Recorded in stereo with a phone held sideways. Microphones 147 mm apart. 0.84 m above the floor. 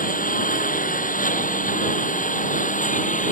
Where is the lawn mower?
70° left (ahead or behind); by 3.3 s 65° left (ahead or behind).